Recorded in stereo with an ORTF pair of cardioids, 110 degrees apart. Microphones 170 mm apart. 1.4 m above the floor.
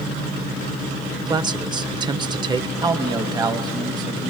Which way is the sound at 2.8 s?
25° right.